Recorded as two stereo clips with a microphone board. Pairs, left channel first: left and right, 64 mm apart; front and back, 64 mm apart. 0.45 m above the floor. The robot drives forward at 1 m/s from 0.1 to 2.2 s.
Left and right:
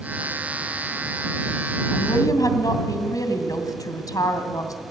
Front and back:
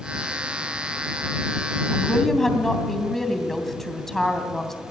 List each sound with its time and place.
1.9 s a woman speaking: 80° left, 2.5 m; by 4.8 s 85° left, 2.5 m